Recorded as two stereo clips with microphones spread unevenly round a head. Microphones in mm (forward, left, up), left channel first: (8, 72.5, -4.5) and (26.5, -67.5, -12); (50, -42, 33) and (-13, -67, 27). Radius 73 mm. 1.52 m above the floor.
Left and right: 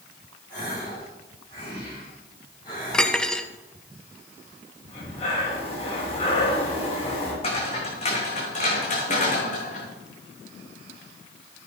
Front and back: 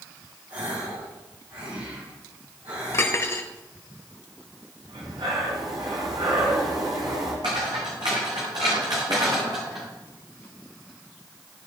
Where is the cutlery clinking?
20° left, 0.9 m.